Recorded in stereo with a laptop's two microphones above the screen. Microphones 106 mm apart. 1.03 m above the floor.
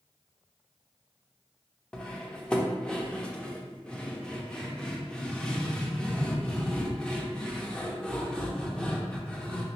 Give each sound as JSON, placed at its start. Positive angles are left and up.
{"t": 1.9, "sound": "cutlery clinking", "side_deg": 5, "distance_m": 0.6}